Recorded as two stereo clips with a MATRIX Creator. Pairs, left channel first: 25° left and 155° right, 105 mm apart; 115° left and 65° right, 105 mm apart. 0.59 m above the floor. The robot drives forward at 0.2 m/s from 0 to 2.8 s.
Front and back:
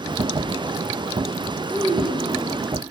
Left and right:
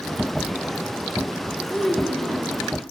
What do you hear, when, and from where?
1.7 s a child speaking: 160° right, 6 m